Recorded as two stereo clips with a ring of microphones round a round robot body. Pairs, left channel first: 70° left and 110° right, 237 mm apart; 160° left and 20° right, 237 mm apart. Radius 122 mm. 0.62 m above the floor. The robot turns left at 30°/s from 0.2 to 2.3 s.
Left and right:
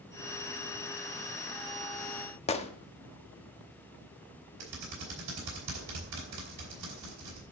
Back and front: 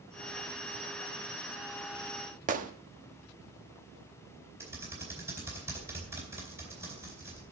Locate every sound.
2.5 s a gunshot: 15° left, 1.0 m
4.6 s typing on a keyboard: 100° right, 4 m